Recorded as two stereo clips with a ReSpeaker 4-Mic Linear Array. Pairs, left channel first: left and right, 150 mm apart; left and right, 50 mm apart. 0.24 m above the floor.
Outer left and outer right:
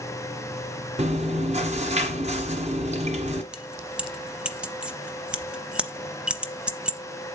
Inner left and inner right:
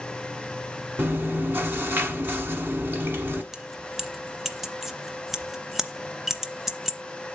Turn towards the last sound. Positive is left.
turn(degrees=-5)  # may be behind; listen again after turning